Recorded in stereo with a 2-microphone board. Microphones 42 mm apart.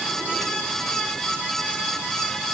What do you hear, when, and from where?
Only background noise.